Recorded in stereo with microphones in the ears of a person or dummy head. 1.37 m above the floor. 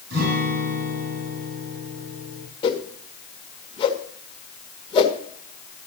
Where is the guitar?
60° right (ahead or behind), 4.5 m.